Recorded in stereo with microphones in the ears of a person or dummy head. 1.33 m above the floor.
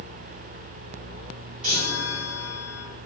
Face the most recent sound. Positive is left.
turn(degrees=-5)  # may be behind; listen again after turning